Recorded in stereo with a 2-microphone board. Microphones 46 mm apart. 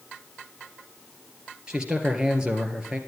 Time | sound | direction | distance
1.7 | a man speaking | 20° right (ahead or behind) | 2 m